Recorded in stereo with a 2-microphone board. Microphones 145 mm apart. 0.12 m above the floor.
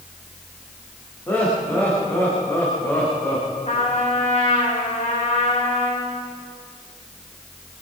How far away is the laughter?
About 8 m.